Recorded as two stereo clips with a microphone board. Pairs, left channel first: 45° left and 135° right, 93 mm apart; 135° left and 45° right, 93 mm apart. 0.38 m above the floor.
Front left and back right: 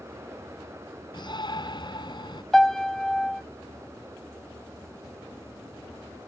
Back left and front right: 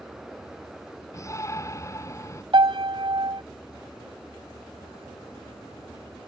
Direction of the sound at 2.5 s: 40° right.